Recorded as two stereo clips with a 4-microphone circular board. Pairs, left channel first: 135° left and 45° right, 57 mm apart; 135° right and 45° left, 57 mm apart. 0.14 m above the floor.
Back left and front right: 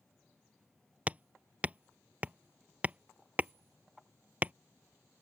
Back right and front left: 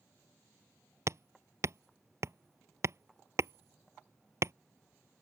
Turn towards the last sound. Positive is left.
turn(degrees=15)